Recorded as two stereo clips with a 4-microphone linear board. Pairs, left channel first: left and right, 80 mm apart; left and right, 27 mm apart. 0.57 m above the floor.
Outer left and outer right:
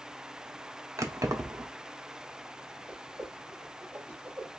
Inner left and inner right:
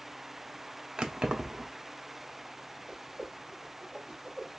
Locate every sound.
1.0 s keys jangling: 40° right (ahead or behind), 0.7 m
2.9 s a whoosh: 20° right (ahead or behind), 2 m